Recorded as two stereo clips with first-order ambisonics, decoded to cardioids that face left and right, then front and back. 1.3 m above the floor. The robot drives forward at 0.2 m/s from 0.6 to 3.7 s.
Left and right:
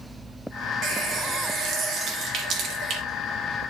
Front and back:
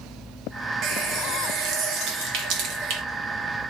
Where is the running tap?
135° right, 1.4 m; by 3.0 s 145° right, 1.7 m.